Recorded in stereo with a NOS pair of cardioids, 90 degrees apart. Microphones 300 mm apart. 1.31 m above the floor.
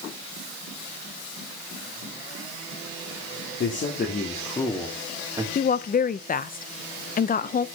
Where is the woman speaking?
30° left, 0.7 m.